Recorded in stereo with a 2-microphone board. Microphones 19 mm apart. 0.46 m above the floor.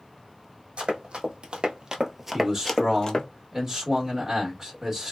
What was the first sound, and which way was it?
Running footsteps, 70° right (ahead or behind).